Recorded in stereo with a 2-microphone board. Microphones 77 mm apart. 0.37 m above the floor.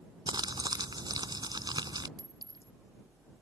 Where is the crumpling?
65° right (ahead or behind).